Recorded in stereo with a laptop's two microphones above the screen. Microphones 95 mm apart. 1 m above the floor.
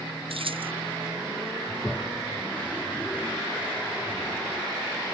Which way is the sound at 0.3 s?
70° right (ahead or behind).